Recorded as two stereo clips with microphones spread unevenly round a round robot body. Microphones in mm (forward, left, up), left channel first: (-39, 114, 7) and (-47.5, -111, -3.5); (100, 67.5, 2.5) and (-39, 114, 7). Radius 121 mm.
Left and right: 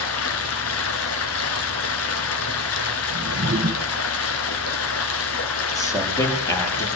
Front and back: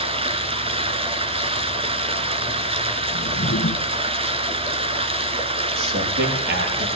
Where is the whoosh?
40° right, 1.9 m.